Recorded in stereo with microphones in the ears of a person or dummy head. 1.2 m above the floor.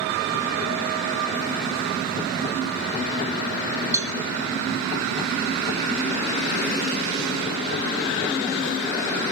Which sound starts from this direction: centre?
A cowbell, at 3.9 s.